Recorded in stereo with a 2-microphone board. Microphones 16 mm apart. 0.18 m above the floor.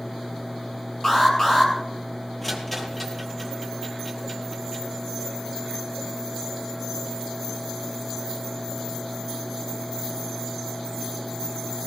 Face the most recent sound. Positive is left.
turn(degrees=10)  # may be behind; listen again after turning